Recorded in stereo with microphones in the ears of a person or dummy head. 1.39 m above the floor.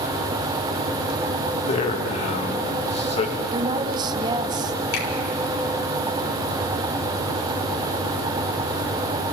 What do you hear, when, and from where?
1.6 s a man speaking: 35° left (ahead or behind), 2.5 m
3.5 s a woman speaking: 25° right (ahead or behind), 1.2 m
4.9 s a finger snap: 80° left, 4.5 m